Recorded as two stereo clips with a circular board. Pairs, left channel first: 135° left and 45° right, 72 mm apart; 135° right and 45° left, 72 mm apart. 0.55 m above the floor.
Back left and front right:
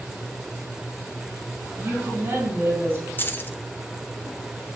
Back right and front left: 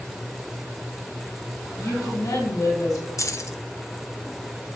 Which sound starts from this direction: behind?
Keys jangling, at 3.2 s.